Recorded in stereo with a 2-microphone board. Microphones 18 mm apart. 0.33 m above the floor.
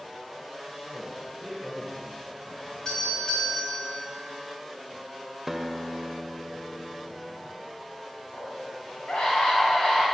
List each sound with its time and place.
0.8 s a man speaking: 5° left (ahead or behind), 3.5 m
2.9 s a doorbell: 50° left (ahead or behind), 3 m
5.5 s a guitar: 5° right (ahead or behind), 0.6 m
8.3 s a scream: 60° left (ahead or behind), 3 m